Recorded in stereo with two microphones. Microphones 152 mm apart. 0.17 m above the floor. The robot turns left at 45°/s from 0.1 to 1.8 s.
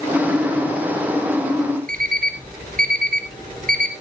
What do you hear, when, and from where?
1.9 s an alarm clock: 70° right (ahead or behind), 2 m